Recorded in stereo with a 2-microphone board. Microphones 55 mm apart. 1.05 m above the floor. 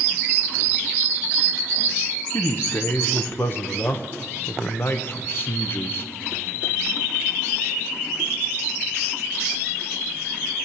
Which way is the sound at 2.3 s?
40° left (ahead or behind).